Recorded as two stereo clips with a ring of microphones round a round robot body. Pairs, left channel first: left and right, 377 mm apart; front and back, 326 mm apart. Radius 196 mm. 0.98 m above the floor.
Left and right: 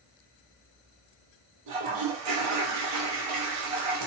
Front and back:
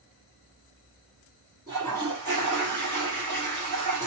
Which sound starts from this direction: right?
A toilet flushing, at 1.7 s.